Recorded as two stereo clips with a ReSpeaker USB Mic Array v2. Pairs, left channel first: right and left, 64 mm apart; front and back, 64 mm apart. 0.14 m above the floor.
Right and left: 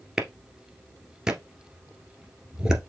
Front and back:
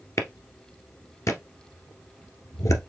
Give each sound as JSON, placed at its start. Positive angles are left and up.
{"t": 0.2, "sound": "a clap", "azimuth_deg": 15, "distance_m": 1.5}